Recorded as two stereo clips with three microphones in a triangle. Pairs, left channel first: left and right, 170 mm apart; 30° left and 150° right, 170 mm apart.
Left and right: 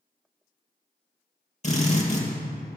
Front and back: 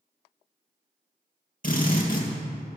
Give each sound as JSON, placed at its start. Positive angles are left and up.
{"t": 1.6, "sound": "a drill", "azimuth_deg": 55, "distance_m": 2.5}